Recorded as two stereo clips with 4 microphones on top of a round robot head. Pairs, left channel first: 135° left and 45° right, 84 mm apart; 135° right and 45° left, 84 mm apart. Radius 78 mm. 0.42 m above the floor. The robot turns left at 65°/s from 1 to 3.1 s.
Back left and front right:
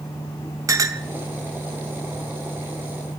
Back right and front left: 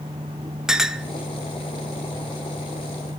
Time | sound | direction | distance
0.7 | a clink | 35° right | 0.6 m